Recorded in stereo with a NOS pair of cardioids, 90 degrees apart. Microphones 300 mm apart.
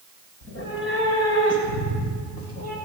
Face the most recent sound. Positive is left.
turn(degrees=70)